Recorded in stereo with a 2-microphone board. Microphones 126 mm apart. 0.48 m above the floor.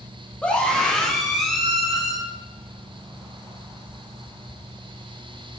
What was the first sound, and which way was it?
A scream, 10° left (ahead or behind).